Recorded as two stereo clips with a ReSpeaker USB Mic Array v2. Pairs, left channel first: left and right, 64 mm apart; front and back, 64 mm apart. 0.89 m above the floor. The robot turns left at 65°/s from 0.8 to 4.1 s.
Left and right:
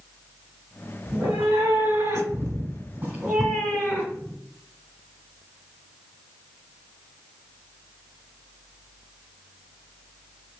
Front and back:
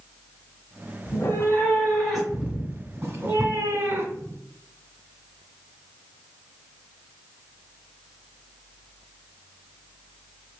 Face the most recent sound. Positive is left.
turn(degrees=145)